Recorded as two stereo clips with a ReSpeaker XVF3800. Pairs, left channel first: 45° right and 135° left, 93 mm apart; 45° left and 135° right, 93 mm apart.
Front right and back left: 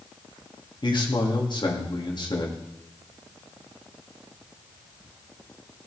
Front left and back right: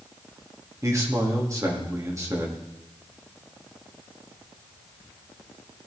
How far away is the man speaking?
About 2.5 m.